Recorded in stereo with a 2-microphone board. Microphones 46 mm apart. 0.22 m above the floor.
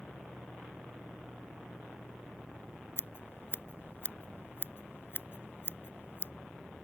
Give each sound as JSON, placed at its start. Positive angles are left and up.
{"t": 3.0, "sound": "scissors", "side_deg": 55}